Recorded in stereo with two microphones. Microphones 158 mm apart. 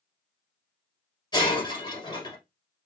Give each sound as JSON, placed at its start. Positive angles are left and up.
{"t": 1.3, "sound": "breaking glass", "side_deg": 30, "distance_m": 2.0}